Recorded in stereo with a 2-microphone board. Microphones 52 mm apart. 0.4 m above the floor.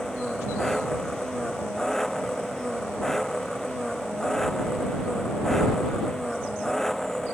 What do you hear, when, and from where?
0.0 s an engine running: 5° left (ahead or behind)